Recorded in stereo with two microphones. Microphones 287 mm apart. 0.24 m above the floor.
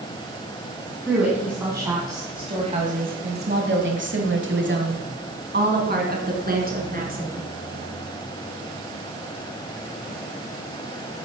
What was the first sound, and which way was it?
A woman speaking, 5° right (ahead or behind).